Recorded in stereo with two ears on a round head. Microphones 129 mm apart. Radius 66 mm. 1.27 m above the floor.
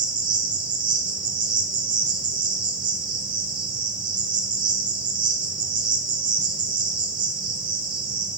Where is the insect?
30° right (ahead or behind), 1.2 m.